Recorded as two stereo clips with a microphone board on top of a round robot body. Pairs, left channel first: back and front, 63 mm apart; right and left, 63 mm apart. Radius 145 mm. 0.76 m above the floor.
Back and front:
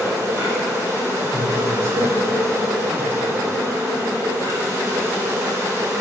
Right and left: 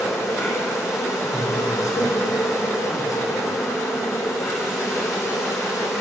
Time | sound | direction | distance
0.0 | an insect | 45° right | 3 m
1.2 | a man speaking | 55° right | 3 m